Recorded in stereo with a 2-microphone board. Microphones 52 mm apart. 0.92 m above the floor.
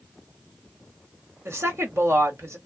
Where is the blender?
I don't hear a blender.